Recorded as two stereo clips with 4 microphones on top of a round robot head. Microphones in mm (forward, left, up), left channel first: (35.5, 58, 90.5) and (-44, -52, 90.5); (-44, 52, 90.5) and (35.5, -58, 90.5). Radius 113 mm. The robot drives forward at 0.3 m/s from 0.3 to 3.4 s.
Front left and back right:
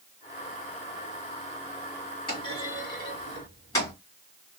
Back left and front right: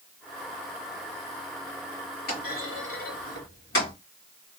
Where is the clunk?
105° left, 1.9 m; by 3.9 s 120° left, 2 m.